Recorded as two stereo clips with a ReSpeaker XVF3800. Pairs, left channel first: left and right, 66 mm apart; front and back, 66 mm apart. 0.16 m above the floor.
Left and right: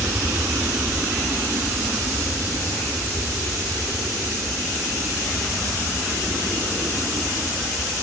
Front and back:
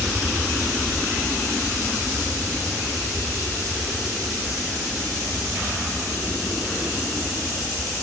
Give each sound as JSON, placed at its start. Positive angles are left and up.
{"t": 0.0, "sound": "an aircraft", "azimuth_deg": -95}